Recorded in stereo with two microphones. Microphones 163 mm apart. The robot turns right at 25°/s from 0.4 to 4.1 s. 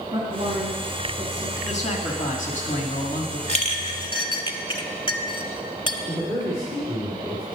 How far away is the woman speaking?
About 2.5 m.